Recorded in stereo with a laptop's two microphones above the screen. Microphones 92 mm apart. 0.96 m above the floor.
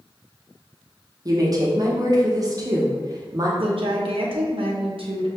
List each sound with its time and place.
1.2 s a woman speaking: 40° right (ahead or behind), 0.9 m
3.6 s a woman speaking: 70° right (ahead or behind), 0.8 m